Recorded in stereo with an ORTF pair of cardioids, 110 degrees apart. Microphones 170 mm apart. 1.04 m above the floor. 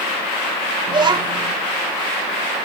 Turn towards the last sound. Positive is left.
turn(degrees=-25)